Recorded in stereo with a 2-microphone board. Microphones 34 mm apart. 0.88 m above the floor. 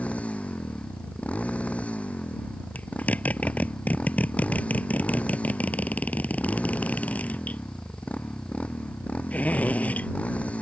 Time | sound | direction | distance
0.0 | a motorcycle | 45° left (ahead or behind) | ?
2.8 | a zipper | 50° left (ahead or behind) | ?